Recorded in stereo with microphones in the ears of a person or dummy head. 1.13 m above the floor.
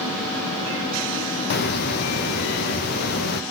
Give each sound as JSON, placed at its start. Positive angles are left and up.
{"t": 1.5, "sound": "a hiss", "side_deg": 55, "distance_m": 0.5}